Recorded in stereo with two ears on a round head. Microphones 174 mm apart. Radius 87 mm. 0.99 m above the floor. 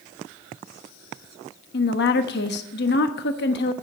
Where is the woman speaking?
60° left (ahead or behind), 1.0 m.